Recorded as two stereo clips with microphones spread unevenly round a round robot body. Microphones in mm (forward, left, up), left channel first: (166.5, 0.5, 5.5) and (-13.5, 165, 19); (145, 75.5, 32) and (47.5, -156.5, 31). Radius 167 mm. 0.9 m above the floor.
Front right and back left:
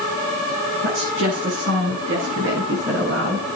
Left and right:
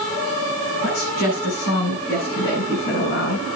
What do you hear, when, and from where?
0.8 s a woman speaking: 105° left, 8.5 m; by 3.5 s 100° left, 9.5 m